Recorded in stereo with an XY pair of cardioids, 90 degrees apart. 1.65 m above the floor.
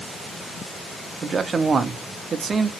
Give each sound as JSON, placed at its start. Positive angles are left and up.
{"t": 1.2, "sound": "a man speaking", "azimuth_deg": -45, "distance_m": 0.6}